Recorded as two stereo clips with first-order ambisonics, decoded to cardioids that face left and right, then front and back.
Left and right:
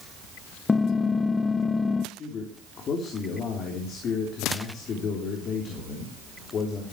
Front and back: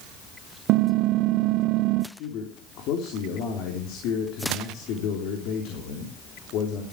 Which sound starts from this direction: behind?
Typing on a keyboard, at 0.7 s.